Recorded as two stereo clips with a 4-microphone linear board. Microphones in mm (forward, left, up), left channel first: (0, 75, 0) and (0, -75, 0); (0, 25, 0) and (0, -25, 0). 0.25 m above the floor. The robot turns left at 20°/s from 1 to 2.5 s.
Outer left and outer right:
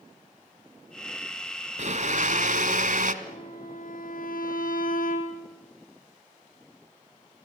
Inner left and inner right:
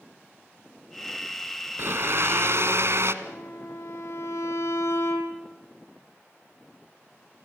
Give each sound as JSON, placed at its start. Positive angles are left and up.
{"t": 1.8, "sound": "a blender", "side_deg": -55, "distance_m": 1.4}
{"t": 3.2, "sound": "a violin", "side_deg": 70, "distance_m": 3.5}